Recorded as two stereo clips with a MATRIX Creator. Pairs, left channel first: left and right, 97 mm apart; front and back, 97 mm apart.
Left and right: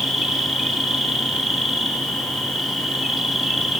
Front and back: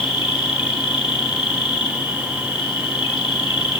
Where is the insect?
5° right, 2.5 m.